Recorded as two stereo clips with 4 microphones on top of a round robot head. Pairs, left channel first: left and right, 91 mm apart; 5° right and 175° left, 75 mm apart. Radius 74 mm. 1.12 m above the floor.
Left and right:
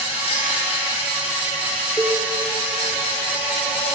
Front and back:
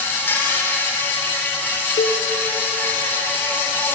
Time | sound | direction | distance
0.0 | an insect | 60° left | 4.5 m
2.0 | a cowbell | 5° left | 1.1 m